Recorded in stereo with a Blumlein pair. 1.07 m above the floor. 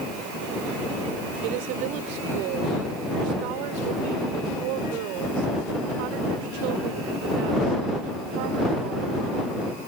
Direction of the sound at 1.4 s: 45° right.